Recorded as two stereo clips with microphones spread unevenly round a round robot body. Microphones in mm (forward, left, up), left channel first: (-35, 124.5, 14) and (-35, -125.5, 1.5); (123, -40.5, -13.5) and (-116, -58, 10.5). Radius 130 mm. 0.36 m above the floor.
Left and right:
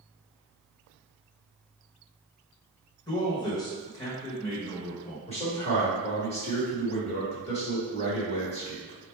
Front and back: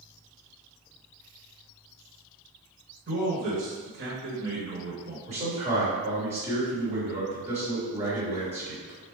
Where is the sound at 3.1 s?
160° left, 1.1 m.